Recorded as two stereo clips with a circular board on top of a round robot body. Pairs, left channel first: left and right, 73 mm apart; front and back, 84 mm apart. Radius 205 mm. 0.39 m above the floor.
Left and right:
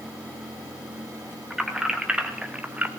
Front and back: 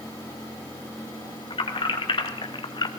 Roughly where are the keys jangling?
Ahead.